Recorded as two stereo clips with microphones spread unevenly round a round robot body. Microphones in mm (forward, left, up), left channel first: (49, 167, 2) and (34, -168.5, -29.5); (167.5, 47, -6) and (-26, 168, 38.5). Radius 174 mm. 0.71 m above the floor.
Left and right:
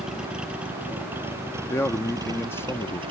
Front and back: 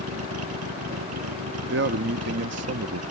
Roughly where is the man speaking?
Behind.